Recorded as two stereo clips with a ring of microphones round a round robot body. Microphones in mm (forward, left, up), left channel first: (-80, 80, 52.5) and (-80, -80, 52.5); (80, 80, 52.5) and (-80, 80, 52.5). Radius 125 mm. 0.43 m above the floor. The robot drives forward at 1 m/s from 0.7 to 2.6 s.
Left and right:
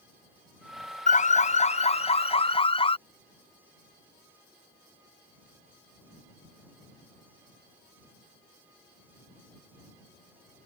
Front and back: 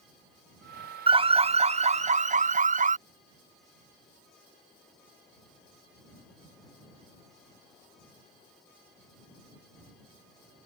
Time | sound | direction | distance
1.1 | an alarm | 125° left | ?